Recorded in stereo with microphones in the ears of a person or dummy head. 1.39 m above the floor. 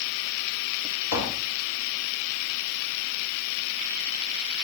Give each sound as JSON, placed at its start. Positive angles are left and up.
{"t": 1.1, "sound": "tapping", "side_deg": 65, "distance_m": 4.0}